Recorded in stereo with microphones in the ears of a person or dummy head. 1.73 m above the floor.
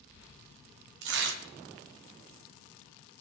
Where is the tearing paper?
75° right (ahead or behind), 1.1 m.